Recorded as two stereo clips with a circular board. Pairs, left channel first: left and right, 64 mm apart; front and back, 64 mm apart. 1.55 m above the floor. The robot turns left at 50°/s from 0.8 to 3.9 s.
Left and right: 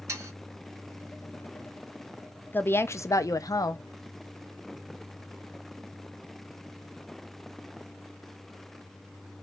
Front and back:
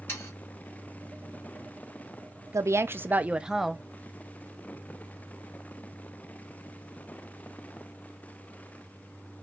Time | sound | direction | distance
0.1 | sawing | 50° right | 2.5 m
2.5 | a woman speaking | 150° left | 0.5 m